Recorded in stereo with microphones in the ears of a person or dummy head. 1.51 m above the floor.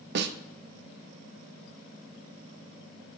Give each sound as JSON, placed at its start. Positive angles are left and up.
{"t": 0.1, "sound": "a snare drum", "side_deg": -60, "distance_m": 0.5}